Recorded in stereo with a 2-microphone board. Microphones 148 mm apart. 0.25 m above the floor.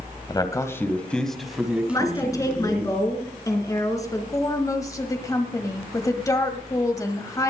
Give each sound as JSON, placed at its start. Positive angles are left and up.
{"t": 0.3, "sound": "a man speaking", "side_deg": 30, "distance_m": 1.3}
{"t": 1.9, "sound": "a woman speaking", "side_deg": 25, "distance_m": 3.0}
{"t": 4.3, "sound": "a woman speaking", "side_deg": 25, "distance_m": 1.2}